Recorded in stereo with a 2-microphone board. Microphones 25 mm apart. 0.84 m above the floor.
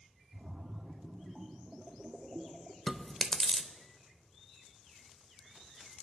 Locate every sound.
0.3 s a splash: 25° right (ahead or behind), 1.2 m
2.9 s chewing: 5° left (ahead or behind), 0.8 m